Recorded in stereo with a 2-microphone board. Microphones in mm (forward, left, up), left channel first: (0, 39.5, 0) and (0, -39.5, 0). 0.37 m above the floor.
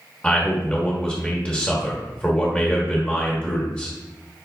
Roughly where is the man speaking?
Centre.